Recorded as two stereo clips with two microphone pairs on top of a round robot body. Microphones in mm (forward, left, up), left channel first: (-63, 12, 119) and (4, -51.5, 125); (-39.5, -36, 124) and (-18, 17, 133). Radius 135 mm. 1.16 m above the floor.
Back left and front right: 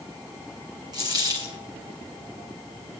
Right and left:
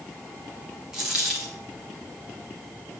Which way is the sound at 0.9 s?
5° left.